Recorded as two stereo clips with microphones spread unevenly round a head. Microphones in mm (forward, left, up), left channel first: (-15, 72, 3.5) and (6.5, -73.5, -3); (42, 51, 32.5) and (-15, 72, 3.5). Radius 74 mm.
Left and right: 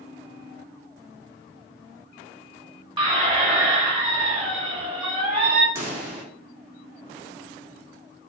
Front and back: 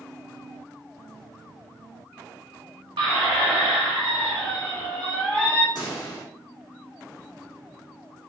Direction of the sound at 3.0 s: 140° right.